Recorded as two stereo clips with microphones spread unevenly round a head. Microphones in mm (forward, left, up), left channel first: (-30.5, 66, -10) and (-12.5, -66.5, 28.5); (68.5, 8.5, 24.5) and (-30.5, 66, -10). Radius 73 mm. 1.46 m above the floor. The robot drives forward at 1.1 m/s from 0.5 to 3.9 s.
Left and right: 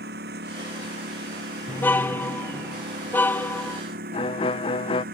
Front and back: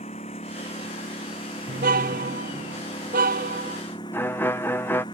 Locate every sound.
0.0 s a lawn mower: 80° right; by 5.2 s 95° right
1.7 s a car horn: 175° left
4.1 s a violin: 45° left